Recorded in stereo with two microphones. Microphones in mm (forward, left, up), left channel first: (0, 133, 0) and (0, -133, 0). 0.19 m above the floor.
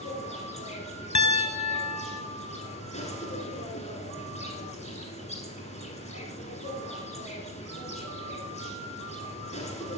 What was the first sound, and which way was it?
An insect, 25° left (ahead or behind).